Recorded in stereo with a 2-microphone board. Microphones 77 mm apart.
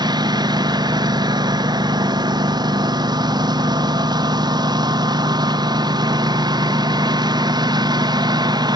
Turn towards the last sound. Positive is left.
turn(degrees=-65)  # may be behind; listen again after turning